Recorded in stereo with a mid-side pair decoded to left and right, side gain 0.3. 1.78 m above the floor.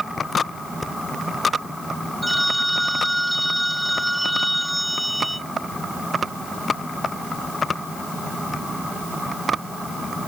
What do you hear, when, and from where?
0.8 s breathing: 30° left
2.2 s a phone ringing: 5° right